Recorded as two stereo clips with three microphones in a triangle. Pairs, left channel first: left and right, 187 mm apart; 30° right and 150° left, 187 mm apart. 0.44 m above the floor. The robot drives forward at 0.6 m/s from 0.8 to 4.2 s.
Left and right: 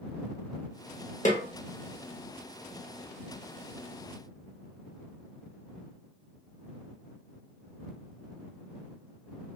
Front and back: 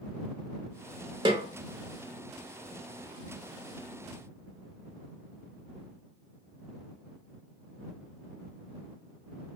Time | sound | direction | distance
1.2 | a snare drum | 100° left | 0.7 m